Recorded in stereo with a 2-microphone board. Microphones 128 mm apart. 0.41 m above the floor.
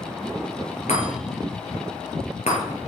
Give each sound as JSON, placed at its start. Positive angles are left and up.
{"t": 0.9, "sound": "a chime", "side_deg": 60, "distance_m": 6.0}